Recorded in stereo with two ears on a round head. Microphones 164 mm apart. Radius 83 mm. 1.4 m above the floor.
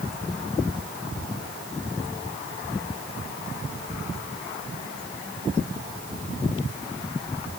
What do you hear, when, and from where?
Only background noise.